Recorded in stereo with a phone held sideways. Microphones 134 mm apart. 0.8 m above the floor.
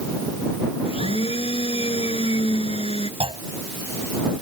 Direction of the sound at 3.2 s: 50° right (ahead or behind).